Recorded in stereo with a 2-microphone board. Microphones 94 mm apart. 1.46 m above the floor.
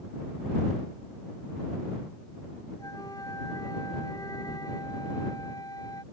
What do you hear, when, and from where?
2.8 s a flute: 40° left (ahead or behind)